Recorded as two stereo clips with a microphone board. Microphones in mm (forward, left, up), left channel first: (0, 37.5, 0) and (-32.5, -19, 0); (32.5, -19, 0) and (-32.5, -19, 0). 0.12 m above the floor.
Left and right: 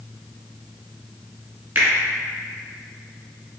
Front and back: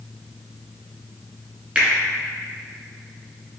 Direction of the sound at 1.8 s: 125° right.